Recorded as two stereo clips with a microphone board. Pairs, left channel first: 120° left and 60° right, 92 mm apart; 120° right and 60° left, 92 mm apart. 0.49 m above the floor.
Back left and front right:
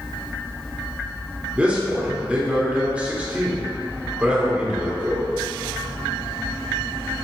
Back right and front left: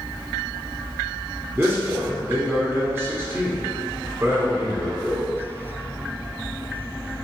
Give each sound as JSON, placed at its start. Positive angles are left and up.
{"t": 1.6, "sound": "a man speaking", "azimuth_deg": 10, "distance_m": 1.1}